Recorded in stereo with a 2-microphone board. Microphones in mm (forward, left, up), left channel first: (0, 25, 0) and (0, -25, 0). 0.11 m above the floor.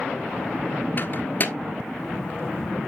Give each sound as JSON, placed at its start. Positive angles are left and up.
{"t": 1.0, "sound": "a microwave", "side_deg": 40, "distance_m": 1.3}